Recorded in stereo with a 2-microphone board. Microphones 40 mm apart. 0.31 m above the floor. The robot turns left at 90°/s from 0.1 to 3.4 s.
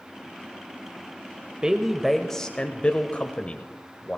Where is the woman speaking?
135° right, 1.0 m; by 4.2 s 65° left, 1.0 m.